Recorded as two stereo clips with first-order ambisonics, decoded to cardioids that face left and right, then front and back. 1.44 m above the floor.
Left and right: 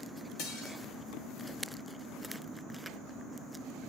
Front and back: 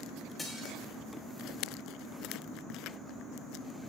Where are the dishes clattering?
85° left, 5.5 m.